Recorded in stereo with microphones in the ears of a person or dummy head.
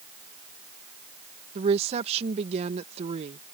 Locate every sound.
1.6 s a woman speaking: 35° right (ahead or behind)